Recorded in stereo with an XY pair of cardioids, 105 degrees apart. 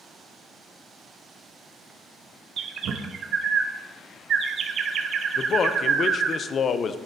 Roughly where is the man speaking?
Ahead left.